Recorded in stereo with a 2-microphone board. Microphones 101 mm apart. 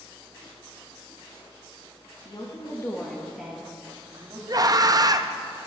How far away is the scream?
About 0.5 m.